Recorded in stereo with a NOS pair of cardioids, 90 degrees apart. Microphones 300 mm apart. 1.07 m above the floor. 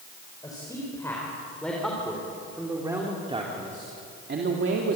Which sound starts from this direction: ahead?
A man speaking, at 0.4 s.